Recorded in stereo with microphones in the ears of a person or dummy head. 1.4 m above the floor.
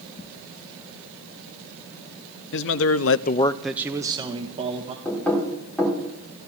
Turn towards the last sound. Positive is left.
turn(degrees=5)  # may be behind; listen again after turning